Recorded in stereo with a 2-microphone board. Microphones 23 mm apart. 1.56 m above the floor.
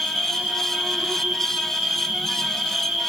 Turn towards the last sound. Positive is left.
turn(degrees=-85)